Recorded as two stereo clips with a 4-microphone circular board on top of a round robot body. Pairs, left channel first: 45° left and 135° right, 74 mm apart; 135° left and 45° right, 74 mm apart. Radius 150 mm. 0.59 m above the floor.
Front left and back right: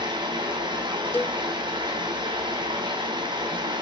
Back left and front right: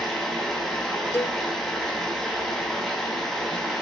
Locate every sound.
0.0 s running water: 135° right, 4.5 m
1.1 s a cowbell: 95° left, 1.0 m